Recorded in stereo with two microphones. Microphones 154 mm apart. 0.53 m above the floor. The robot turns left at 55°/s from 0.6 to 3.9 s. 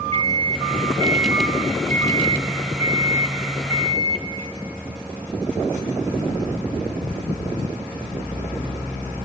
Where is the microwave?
125° right, 1.4 m; by 4.3 s 55° left, 1.4 m.